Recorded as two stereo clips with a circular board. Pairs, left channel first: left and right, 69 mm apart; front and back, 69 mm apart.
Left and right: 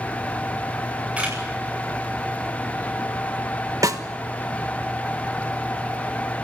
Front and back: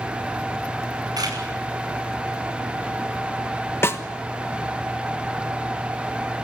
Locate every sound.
1.2 s a camera shutter: 160° right, 8.5 m
3.8 s a snare drum: 55° right, 1.4 m